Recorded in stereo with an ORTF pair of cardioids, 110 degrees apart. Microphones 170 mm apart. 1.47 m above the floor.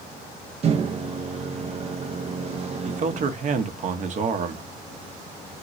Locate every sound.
0.6 s a microwave: 40° right, 0.6 m
2.9 s a man speaking: 45° right, 0.8 m